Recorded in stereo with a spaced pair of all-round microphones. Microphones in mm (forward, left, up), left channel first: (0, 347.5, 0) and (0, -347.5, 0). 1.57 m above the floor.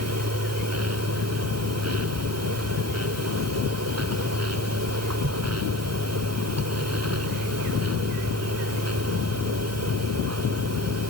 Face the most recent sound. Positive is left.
turn(degrees=-20)  # may be behind; listen again after turning